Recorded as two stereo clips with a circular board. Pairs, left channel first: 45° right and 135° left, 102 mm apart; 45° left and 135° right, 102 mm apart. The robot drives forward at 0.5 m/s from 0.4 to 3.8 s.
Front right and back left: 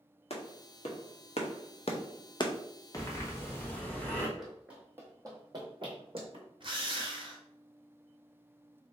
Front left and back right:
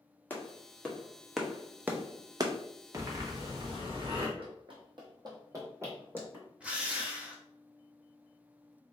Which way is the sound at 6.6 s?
150° left.